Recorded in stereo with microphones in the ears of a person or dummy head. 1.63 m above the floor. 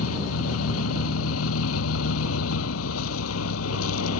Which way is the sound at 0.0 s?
85° left.